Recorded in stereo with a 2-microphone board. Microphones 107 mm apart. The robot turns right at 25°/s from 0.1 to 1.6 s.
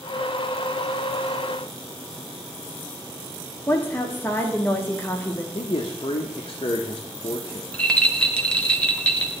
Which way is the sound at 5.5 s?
50° left (ahead or behind).